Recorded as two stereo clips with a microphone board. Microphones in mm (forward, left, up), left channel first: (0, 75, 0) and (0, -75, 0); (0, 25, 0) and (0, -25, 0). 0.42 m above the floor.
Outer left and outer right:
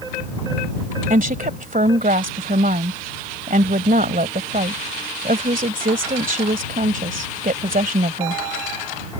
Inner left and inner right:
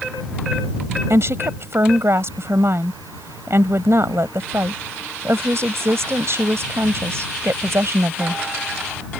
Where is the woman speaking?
65° right (ahead or behind).